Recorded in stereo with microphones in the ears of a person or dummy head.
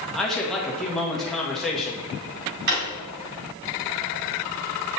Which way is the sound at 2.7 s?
50° right (ahead or behind).